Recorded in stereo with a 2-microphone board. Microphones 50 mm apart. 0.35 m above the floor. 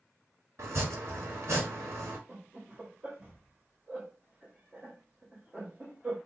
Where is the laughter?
30° right (ahead or behind), 1.2 m.